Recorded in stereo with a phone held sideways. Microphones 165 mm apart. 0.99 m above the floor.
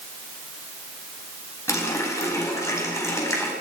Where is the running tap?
15° left (ahead or behind), 4.5 m.